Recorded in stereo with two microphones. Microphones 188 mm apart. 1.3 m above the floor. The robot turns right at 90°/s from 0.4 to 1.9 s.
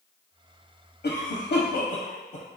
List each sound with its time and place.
1.0 s a cough: 55° left (ahead or behind), 0.5 m; by 2.5 s 35° left (ahead or behind), 0.5 m